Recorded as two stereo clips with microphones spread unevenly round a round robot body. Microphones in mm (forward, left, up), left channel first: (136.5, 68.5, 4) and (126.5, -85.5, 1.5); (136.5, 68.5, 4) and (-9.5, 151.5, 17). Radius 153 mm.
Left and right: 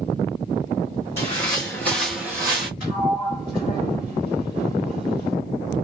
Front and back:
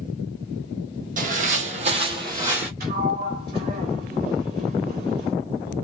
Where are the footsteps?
140° left, 0.9 m; by 2.7 s 135° right, 0.7 m.